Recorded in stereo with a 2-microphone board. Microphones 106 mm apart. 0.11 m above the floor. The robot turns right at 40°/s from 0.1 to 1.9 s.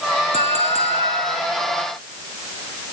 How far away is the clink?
About 4.5 m.